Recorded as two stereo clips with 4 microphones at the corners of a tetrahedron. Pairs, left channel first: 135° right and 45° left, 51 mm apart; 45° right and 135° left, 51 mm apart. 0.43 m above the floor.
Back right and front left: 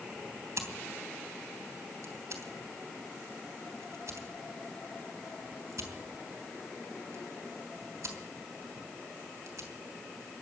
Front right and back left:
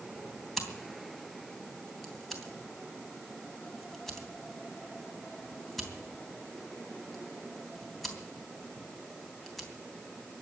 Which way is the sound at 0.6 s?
40° left.